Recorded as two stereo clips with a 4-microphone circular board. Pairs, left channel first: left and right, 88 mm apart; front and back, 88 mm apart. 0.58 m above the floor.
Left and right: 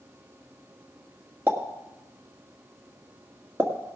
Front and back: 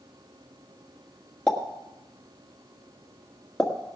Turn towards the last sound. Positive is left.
turn(degrees=-75)